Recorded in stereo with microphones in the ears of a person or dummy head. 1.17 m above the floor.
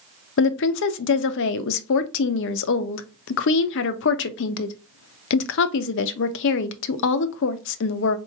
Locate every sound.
0.4 s a woman speaking: 65° left (ahead or behind), 0.5 m